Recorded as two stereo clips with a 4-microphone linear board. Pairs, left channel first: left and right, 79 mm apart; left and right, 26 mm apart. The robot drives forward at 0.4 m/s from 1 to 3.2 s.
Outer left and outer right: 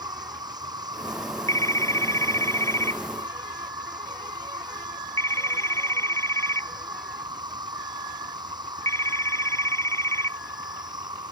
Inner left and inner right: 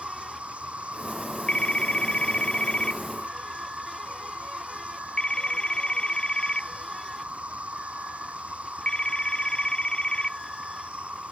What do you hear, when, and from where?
0.0 s an insect: 65° right (ahead or behind); by 11.3 s 70° right (ahead or behind)
1.5 s a phone ringing: 45° left (ahead or behind); by 10.4 s 40° left (ahead or behind)